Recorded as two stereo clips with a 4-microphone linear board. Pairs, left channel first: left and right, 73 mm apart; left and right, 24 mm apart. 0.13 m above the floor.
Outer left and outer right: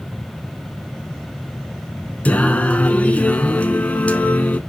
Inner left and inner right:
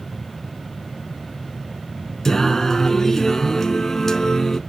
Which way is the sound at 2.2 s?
20° left (ahead or behind).